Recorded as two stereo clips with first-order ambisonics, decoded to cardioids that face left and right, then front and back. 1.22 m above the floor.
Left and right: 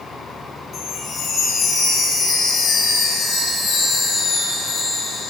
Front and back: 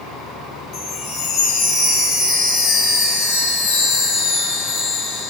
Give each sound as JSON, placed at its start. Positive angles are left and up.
{"t": 0.7, "sound": "a chime", "azimuth_deg": 35, "distance_m": 4.0}